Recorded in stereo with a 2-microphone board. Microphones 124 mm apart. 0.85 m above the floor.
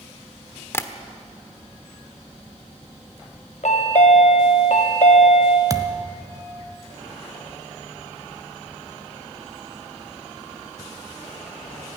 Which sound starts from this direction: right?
A thud, at 5.7 s.